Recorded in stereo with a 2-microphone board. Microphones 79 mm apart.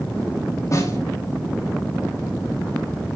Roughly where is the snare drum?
Left.